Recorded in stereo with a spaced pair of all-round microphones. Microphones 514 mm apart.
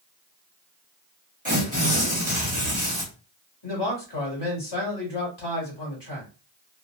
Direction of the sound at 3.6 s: 50° left (ahead or behind).